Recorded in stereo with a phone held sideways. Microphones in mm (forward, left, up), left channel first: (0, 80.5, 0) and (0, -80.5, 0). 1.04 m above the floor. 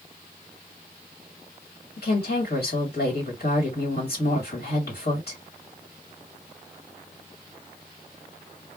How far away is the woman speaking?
About 1.7 m.